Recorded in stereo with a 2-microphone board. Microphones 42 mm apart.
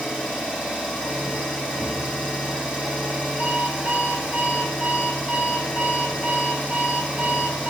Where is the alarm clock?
40° right (ahead or behind), 1.1 m.